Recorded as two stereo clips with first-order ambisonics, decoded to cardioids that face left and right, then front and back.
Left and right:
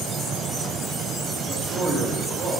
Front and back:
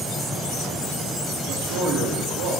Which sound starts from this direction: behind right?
A man speaking, at 1.5 s.